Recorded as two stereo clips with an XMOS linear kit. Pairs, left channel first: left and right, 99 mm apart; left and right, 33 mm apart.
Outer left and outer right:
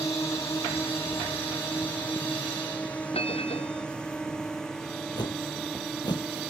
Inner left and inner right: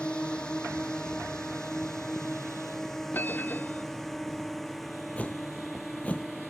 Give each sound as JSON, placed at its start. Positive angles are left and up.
{"t": 0.0, "sound": "a drone", "side_deg": 30}
{"t": 3.1, "sound": "a bell", "side_deg": 80}
{"t": 5.2, "sound": "a whoosh", "side_deg": 50}